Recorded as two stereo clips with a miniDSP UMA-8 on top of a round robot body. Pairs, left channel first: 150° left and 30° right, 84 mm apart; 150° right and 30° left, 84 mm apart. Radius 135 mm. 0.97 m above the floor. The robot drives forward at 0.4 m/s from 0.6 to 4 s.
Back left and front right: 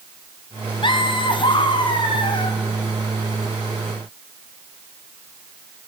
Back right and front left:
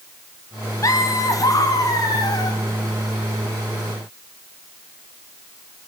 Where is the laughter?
165° left, 1.7 m; by 2.6 s 170° left, 2.5 m.